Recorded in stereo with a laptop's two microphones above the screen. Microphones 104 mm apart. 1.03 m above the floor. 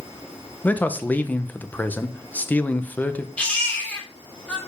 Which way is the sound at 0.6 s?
15° left (ahead or behind).